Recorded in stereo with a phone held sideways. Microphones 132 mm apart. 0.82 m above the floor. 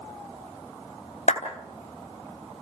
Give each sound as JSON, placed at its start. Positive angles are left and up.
{"t": 1.3, "sound": "a clap", "side_deg": 75, "distance_m": 3.5}